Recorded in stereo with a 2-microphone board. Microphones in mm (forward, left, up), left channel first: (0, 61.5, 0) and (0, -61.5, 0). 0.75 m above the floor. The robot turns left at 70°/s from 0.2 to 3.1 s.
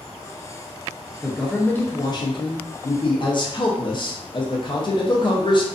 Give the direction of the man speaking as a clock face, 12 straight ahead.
6 o'clock.